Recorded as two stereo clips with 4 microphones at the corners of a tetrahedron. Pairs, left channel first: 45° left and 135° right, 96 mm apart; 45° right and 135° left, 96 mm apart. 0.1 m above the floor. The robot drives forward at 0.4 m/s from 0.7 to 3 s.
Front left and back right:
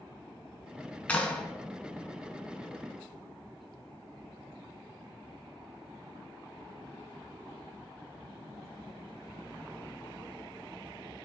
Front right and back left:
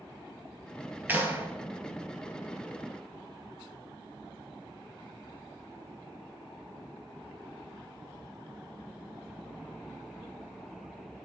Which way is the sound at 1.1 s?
100° left.